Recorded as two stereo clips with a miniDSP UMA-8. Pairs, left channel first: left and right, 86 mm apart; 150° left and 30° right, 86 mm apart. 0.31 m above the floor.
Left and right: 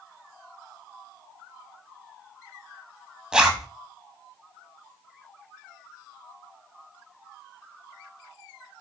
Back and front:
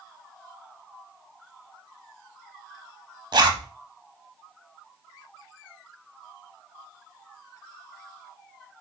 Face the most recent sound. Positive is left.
turn(degrees=-10)